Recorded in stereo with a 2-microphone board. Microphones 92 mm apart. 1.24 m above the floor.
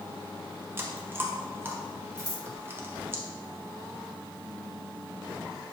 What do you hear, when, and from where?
0.8 s chewing: 25° right (ahead or behind), 0.6 m
2.2 s scissors: 45° left (ahead or behind), 1.1 m